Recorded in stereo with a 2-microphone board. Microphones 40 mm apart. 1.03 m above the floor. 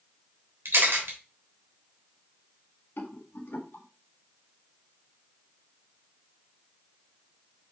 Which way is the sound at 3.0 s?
65° left (ahead or behind).